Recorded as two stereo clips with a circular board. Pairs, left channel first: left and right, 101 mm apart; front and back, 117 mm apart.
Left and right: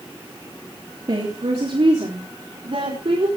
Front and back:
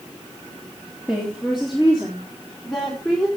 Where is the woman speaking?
95° right, 3 m; by 3.3 s 85° right, 4.5 m.